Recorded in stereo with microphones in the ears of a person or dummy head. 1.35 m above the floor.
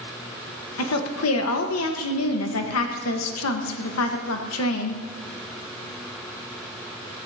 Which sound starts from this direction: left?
A woman speaking, at 0.8 s.